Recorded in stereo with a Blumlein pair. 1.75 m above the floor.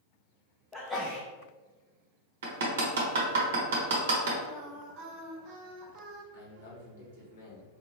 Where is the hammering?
55° right, 0.9 m.